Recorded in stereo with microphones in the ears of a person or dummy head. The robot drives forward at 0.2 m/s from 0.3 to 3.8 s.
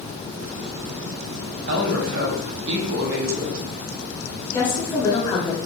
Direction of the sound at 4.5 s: 30° left (ahead or behind).